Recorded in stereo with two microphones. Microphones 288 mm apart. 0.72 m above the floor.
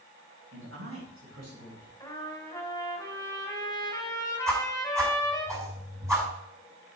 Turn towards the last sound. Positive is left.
turn(degrees=-10)  # may be behind; listen again after turning